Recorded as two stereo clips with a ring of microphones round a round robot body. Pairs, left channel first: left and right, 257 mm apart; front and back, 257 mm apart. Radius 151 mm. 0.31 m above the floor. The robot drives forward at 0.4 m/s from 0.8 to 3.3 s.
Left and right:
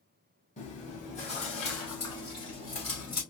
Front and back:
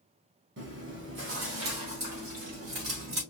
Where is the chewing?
150° left, 2 m; by 3.2 s 160° left, 3 m.